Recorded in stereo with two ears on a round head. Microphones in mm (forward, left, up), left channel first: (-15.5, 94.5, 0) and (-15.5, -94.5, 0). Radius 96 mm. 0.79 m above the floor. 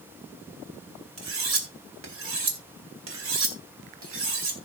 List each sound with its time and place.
1.2 s cutlery clinking: 65° right (ahead or behind), 2.5 m